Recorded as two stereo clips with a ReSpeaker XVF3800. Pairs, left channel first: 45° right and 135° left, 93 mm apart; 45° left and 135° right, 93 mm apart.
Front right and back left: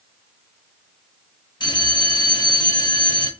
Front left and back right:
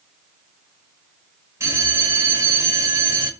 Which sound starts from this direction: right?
A bell, at 1.6 s.